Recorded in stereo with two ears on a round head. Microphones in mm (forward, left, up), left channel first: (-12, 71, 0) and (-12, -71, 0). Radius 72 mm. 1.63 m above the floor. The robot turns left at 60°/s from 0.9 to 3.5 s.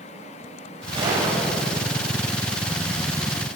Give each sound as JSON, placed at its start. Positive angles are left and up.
{"t": 0.9, "sound": "a gunshot", "azimuth_deg": -145, "distance_m": 5.5}